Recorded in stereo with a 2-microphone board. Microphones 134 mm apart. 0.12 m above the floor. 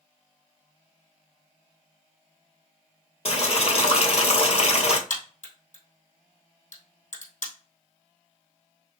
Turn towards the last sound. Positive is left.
turn(degrees=70)  # may be behind; listen again after turning